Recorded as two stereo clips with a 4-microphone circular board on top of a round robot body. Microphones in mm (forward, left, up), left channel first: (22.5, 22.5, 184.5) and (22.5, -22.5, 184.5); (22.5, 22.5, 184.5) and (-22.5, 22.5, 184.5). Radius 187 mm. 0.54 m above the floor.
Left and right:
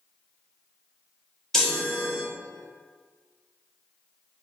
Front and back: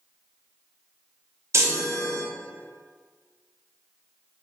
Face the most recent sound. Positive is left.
turn(degrees=170)